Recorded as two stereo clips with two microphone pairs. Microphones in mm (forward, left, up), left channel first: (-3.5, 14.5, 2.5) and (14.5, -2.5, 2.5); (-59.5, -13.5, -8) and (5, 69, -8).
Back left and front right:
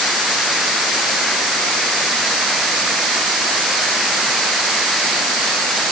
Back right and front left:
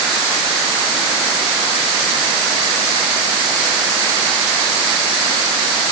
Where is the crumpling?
I don't hear crumpling.